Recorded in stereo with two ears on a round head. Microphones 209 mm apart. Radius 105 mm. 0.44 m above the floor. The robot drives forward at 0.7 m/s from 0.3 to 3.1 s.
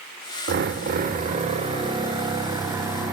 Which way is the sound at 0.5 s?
45° right (ahead or behind).